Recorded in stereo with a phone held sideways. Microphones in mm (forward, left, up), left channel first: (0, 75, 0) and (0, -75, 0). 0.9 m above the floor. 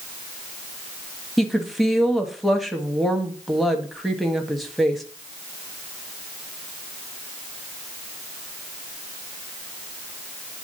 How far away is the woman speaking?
About 1.3 m.